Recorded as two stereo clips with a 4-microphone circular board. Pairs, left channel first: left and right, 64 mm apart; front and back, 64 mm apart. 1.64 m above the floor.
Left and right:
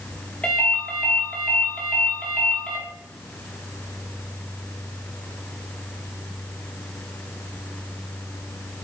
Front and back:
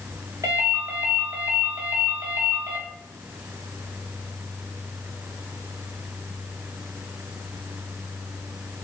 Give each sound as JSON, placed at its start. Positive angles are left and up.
{"t": 0.4, "sound": "a ringtone", "azimuth_deg": 160, "distance_m": 2.0}